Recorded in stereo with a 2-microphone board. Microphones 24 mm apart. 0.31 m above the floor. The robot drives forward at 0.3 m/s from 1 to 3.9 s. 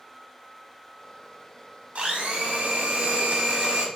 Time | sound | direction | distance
1.9 | a blender | 55° right (ahead or behind) | 0.6 m